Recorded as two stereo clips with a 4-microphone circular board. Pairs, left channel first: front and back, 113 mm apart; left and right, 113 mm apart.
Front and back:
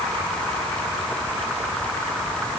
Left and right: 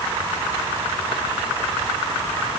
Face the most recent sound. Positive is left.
No sound to turn to.